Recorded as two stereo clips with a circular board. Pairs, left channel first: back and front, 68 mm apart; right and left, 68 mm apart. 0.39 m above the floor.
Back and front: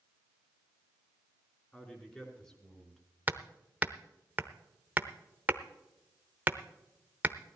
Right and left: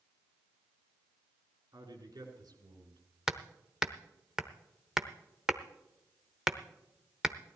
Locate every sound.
1.7 s a man speaking: 110° left, 4.5 m; by 3.0 s 100° left, 4.5 m
3.3 s hammering: 20° left, 0.8 m